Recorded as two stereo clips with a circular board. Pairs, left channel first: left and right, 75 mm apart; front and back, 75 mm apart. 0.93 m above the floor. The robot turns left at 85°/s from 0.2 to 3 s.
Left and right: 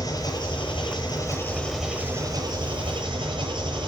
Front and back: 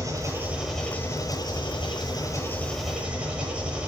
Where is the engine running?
135° left, 9.5 m; by 3.9 s 105° right, 9.5 m.